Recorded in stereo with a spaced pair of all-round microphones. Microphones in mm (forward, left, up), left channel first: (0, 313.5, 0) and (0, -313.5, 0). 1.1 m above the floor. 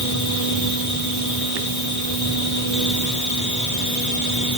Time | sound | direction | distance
0.0 | a machine running | 30° left (ahead or behind) | 1.0 m